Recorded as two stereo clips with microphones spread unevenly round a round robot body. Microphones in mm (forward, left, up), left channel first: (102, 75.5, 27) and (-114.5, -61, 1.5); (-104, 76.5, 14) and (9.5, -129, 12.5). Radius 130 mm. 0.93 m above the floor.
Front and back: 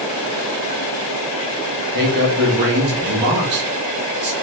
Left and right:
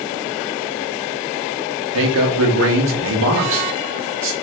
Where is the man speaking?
95° right, 1.1 m.